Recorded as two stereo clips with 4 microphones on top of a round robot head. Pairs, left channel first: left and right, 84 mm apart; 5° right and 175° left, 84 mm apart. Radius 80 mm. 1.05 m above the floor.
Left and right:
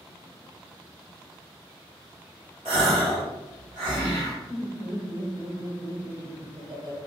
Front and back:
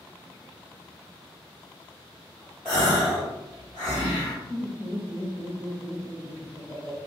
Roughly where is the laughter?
Right.